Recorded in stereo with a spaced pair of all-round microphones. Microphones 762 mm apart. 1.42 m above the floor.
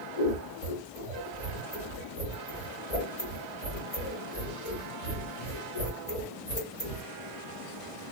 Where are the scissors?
50° left (ahead or behind), 1.7 m.